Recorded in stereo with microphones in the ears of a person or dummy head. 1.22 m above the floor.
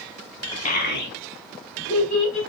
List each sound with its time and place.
0.7 s a child speaking: 45° left (ahead or behind), 0.7 m; by 2.4 s 80° left, 2.5 m